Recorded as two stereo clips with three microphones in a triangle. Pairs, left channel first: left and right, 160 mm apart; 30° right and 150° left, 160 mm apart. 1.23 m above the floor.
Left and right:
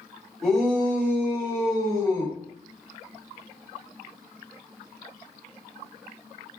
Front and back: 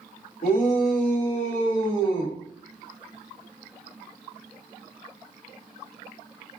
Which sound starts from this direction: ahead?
A shout, at 0.4 s.